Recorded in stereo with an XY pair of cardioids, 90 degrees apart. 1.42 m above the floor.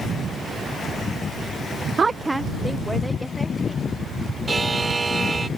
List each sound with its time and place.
2.0 s a woman speaking: 40° right; by 3.9 s 10° left
4.5 s a buzzer: 25° right